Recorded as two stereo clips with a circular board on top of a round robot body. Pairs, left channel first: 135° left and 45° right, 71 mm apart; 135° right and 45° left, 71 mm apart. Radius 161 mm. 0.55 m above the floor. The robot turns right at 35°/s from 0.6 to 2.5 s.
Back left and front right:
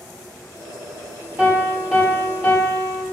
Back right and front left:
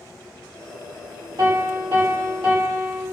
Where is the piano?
20° left, 3.5 m; by 3.0 s 60° left, 3.5 m.